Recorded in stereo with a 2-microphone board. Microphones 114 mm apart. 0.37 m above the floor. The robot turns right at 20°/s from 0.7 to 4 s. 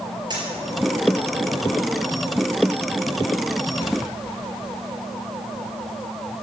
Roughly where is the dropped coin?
Right.